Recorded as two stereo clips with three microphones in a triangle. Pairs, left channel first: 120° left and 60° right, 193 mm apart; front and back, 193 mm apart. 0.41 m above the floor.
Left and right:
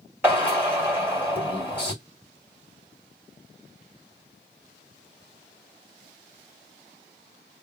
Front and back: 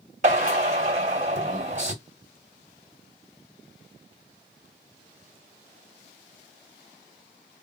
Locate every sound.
0.2 s a drill: 135° right, 1.9 m